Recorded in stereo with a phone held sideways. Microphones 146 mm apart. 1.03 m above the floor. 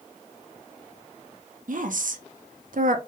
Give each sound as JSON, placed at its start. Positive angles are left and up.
{"t": 1.7, "sound": "a woman speaking", "side_deg": -70, "distance_m": 0.5}